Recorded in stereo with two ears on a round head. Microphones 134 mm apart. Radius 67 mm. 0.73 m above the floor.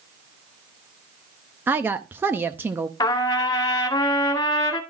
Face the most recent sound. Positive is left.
turn(degrees=25)  # may be behind; listen again after turning